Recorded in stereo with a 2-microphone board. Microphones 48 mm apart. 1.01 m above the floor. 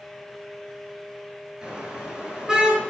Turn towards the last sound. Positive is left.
turn(degrees=-10)  # may be behind; listen again after turning